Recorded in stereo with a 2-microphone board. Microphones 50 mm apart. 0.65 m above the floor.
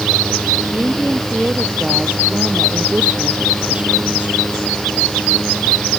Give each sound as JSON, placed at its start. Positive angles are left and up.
{"t": 0.7, "sound": "a woman speaking", "side_deg": -25}